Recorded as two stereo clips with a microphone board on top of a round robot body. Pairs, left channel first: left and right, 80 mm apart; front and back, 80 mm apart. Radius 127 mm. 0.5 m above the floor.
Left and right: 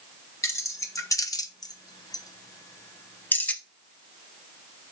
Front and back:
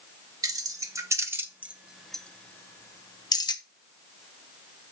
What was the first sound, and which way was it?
Keys jangling, 140° left.